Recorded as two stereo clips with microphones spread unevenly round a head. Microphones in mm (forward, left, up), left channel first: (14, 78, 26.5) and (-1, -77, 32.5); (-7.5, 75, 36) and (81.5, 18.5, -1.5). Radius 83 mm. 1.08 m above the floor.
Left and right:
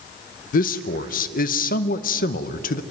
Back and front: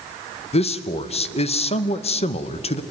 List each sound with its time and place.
0.5 s a man speaking: 115° left, 0.8 m